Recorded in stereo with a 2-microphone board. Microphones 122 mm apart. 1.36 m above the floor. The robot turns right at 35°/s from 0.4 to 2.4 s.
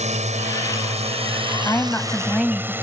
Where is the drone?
85° right; by 2.8 s 20° right (ahead or behind).